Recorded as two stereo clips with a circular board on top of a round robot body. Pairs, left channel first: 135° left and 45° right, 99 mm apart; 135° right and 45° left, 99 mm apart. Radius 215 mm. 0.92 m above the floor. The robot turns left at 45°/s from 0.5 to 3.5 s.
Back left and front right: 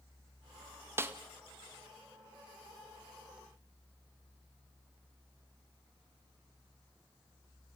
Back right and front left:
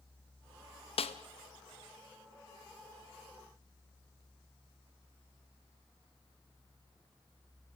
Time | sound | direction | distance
1.0 | a snare drum | 110° right | 1.0 m